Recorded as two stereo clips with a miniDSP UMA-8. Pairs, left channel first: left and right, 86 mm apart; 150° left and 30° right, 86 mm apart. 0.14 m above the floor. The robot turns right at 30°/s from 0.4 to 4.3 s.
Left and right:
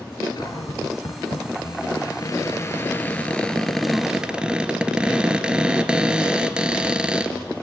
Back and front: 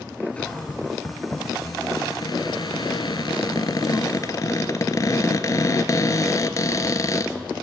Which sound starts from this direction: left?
A cupboard door, at 0.4 s.